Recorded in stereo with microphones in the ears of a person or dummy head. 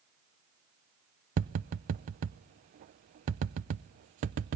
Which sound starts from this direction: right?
Tapping, at 1.4 s.